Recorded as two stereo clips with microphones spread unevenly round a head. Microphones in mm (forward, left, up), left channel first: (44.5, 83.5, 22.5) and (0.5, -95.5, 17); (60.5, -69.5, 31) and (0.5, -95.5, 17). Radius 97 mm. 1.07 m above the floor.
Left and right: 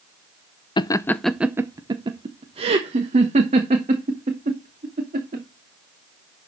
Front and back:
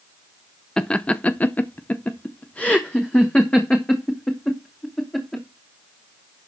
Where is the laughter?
110° left, 0.6 m; by 5.4 s 55° right, 3 m.